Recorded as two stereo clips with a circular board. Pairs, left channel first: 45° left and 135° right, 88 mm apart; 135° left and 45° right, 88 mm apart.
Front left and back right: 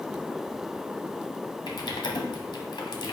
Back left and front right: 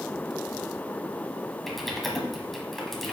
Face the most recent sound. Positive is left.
turn(degrees=45)